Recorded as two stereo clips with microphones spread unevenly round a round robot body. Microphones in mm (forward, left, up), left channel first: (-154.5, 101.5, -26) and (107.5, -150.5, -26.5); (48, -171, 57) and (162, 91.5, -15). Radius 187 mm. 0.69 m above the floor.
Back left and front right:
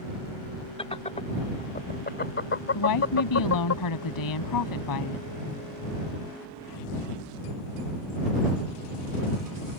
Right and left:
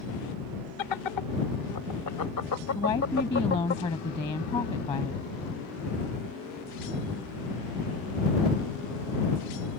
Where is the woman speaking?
170° left.